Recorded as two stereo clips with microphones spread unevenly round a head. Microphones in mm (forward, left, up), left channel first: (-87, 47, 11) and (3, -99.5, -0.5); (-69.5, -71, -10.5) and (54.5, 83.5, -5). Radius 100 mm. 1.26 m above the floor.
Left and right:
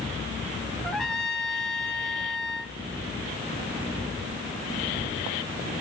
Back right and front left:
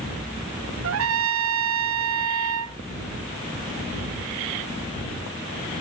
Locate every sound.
0.8 s a trumpet: 30° left, 0.9 m